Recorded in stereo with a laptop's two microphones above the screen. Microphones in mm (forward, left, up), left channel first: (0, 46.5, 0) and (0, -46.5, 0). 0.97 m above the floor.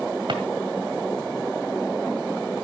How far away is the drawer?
About 1.9 m.